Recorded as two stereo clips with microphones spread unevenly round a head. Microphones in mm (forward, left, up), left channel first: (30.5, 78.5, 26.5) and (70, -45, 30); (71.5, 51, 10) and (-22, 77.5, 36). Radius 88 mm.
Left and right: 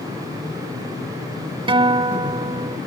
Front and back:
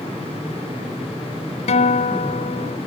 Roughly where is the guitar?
Ahead.